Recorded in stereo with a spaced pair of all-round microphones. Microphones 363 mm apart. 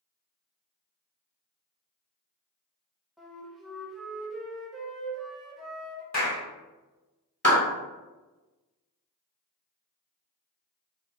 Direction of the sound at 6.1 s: 45° left (ahead or behind).